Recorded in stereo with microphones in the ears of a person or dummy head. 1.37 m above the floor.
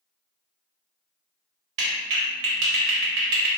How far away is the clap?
About 0.9 m.